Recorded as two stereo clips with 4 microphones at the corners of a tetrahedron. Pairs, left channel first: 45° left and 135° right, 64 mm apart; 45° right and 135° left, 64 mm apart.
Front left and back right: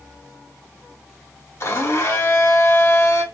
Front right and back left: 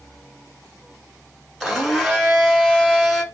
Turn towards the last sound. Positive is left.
turn(degrees=50)